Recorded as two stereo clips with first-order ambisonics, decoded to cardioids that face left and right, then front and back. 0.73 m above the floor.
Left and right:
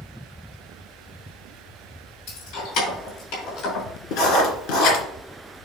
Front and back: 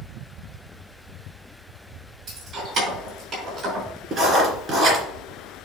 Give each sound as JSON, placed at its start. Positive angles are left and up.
{"t": 2.3, "sound": "keys jangling", "azimuth_deg": 115, "distance_m": 3.5}
{"t": 4.1, "sound": "writing", "azimuth_deg": 115, "distance_m": 2.5}